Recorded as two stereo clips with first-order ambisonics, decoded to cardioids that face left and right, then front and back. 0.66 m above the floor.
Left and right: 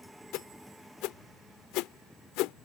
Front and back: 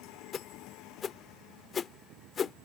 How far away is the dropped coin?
No dropped coin in this recording.